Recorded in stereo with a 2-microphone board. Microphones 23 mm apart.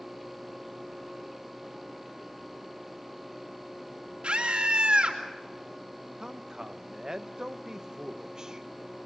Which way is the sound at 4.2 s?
45° right (ahead or behind).